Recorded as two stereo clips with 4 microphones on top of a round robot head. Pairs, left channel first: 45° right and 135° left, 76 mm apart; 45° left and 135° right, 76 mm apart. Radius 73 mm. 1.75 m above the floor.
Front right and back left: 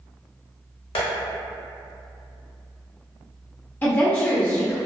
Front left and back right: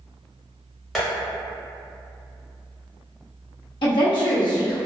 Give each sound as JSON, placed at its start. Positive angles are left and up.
{"t": 0.9, "sound": "tapping", "azimuth_deg": -40, "distance_m": 0.8}
{"t": 3.8, "sound": "a woman speaking", "azimuth_deg": 25, "distance_m": 0.6}